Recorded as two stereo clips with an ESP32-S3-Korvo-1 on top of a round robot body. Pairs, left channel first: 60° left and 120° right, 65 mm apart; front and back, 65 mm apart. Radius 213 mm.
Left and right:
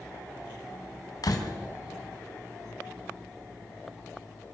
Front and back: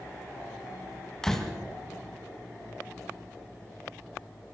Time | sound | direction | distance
1.2 | a door slam | 85° left | 3 m